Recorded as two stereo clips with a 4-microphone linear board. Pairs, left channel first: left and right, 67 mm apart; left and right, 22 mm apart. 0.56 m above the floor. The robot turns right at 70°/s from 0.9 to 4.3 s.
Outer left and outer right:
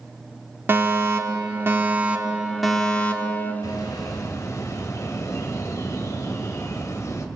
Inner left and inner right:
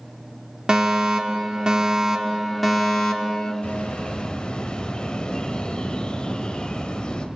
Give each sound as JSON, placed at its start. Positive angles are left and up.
{"t": 0.7, "sound": "a fire alarm", "azimuth_deg": -120, "distance_m": 2.0}
{"t": 3.6, "sound": "a bird", "azimuth_deg": 80, "distance_m": 2.5}